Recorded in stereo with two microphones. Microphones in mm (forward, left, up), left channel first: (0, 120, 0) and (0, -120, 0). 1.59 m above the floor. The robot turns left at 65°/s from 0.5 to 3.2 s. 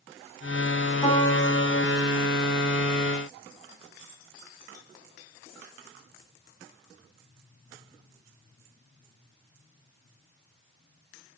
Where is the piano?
155° left, 4 m; by 2.0 s 90° left, 4 m.